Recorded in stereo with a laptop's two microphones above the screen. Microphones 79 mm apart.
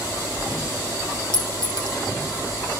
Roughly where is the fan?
Left.